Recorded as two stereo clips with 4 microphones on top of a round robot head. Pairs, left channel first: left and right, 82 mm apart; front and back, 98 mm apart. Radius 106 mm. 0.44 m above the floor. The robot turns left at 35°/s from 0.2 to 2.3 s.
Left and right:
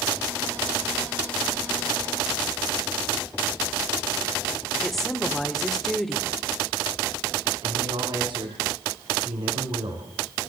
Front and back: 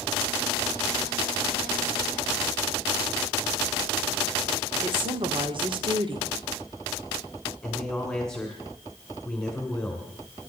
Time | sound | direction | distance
4.8 | a woman speaking | 175° left | 1.8 m
7.6 | a man speaking | 85° right | 3 m